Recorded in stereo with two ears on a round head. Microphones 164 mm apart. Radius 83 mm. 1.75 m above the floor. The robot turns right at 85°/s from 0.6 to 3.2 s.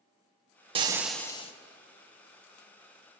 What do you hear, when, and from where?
0.8 s frying: 30° right, 1.5 m; by 1.5 s 35° left, 1.5 m